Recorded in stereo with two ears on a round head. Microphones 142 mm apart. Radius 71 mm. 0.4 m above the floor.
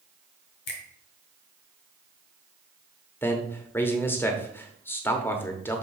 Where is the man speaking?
15° left (ahead or behind), 0.9 m.